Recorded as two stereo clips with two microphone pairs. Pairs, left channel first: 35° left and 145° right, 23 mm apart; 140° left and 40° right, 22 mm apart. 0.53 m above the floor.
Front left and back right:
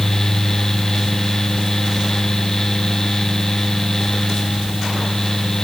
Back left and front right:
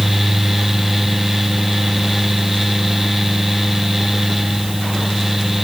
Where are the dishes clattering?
I don't hear dishes clattering.